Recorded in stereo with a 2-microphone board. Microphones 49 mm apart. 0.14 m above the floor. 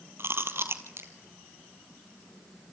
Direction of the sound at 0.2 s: 60° right (ahead or behind).